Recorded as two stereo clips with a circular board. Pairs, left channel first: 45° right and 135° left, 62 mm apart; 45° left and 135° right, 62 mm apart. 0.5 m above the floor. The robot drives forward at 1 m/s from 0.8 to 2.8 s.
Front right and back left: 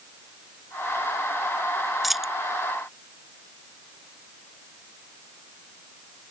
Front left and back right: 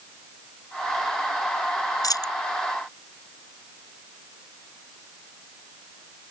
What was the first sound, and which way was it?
A dropped coin, 45° left.